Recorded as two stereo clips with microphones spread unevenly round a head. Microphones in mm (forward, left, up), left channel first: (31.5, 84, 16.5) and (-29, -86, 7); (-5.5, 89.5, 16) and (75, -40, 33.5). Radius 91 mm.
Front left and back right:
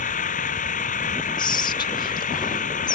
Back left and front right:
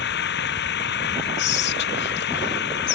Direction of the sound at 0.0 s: 120° left.